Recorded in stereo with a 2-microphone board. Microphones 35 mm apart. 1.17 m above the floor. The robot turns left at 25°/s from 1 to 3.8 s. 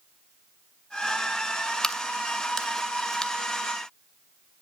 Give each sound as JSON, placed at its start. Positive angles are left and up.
{"t": 1.8, "sound": "a crack", "side_deg": 15, "distance_m": 0.6}